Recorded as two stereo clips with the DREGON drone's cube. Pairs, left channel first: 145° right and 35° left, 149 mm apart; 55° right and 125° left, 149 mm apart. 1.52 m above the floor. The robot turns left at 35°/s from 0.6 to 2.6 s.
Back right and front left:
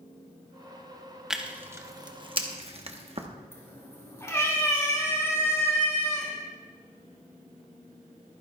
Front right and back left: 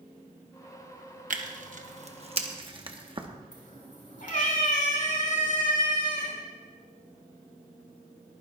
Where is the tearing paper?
120° left, 1.0 m; by 3.3 s 75° left, 1.0 m.